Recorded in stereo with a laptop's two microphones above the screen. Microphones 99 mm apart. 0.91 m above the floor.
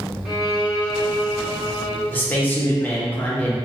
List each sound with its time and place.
0.2 s a violin: centre (ahead or behind), 0.9 m
2.1 s a man speaking: 20° left (ahead or behind), 0.6 m